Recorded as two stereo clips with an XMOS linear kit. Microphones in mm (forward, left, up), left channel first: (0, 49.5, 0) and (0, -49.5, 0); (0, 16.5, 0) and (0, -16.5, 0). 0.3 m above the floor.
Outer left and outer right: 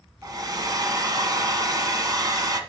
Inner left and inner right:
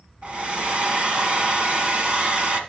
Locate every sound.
0.2 s a hair dryer: 40° right (ahead or behind), 1.3 m